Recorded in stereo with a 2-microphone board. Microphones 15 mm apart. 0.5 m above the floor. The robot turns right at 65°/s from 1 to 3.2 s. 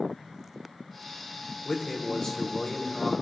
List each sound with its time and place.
1.6 s a man speaking: 25° left, 1.5 m; by 3.1 s 120° left, 1.5 m